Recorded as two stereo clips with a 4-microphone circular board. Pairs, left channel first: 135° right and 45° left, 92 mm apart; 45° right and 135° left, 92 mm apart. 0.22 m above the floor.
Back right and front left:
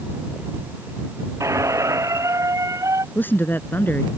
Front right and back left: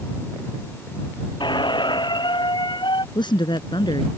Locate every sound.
1.4 s a squeak: 10° right
3.1 s a woman speaking: 70° right